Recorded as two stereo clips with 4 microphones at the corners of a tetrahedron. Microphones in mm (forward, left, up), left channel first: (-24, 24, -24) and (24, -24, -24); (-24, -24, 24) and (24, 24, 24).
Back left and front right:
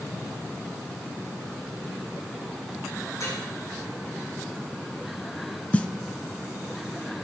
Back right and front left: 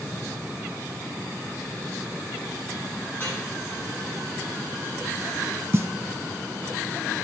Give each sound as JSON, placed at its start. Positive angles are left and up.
{"t": 3.1, "sound": "dripping", "azimuth_deg": 170, "distance_m": 7.5}
{"t": 5.7, "sound": "a snare drum", "azimuth_deg": 75, "distance_m": 0.7}